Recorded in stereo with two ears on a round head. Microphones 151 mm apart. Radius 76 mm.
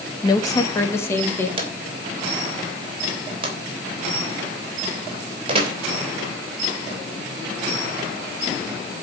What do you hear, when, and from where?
0.2 s a woman speaking: 25° left (ahead or behind), 1.4 m; by 1.5 s 15° left (ahead or behind), 3 m
1.6 s a drawer: 30° right (ahead or behind), 4 m